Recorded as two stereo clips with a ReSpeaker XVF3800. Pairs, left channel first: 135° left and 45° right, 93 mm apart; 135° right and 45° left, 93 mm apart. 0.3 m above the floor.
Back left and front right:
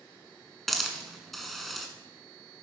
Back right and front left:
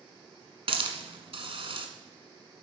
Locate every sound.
0.7 s a hiss: 45° left, 1.5 m